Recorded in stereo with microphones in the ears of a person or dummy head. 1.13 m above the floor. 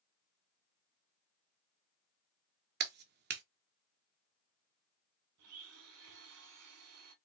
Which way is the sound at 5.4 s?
80° right.